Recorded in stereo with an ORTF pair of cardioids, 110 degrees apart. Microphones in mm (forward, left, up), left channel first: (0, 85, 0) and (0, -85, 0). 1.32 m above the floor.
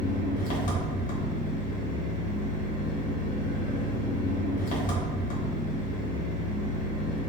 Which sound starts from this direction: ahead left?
An engine running, at 0.0 s.